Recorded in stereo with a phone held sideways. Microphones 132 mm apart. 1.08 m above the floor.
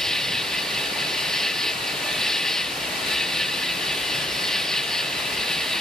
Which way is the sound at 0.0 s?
5° left (ahead or behind).